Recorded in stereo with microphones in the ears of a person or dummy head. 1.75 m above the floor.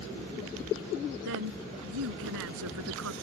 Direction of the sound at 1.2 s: 75° right (ahead or behind).